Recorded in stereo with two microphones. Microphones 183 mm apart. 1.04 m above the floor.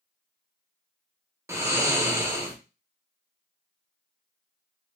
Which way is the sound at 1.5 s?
15° right (ahead or behind).